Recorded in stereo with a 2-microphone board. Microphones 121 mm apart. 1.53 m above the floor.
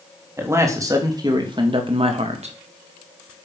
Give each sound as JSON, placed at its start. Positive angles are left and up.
{"t": 0.4, "sound": "a man speaking", "side_deg": -20, "distance_m": 3.5}